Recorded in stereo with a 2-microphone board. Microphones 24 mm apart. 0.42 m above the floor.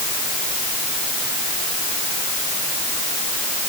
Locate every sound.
Only background noise.